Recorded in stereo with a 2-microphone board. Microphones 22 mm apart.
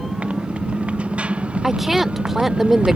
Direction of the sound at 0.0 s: 80° right.